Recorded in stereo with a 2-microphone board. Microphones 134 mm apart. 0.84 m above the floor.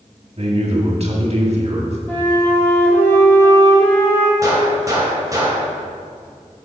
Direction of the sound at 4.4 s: 25° right (ahead or behind).